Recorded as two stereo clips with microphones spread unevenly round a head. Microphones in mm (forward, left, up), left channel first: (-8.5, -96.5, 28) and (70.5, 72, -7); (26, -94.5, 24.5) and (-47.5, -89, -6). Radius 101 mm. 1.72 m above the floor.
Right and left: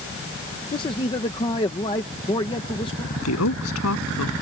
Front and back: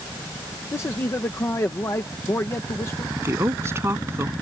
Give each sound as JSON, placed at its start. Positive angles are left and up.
{"t": 0.7, "sound": "a man speaking", "azimuth_deg": -55}
{"t": 3.1, "sound": "a woman speaking", "azimuth_deg": -130}